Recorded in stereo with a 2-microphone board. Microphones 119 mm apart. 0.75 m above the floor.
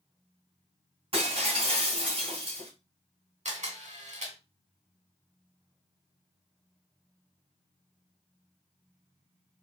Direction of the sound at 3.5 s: 80° right.